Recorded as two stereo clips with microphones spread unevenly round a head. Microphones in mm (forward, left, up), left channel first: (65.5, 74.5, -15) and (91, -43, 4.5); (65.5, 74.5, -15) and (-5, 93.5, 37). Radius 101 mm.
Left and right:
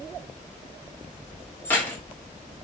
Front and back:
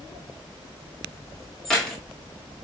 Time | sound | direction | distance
1.6 | keys jangling | 175° right | 1.0 m